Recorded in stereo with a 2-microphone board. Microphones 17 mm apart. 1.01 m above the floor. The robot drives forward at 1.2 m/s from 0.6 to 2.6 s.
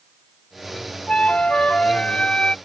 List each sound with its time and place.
1.1 s a flute: 85° left; by 2.5 s 60° left (ahead or behind)